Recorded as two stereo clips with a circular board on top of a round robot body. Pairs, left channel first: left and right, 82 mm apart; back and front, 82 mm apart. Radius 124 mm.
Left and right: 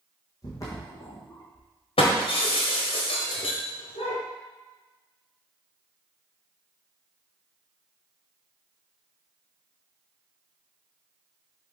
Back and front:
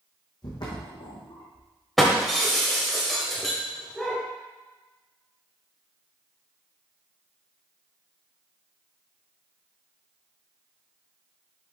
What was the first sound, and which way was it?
Footsteps, 140° left.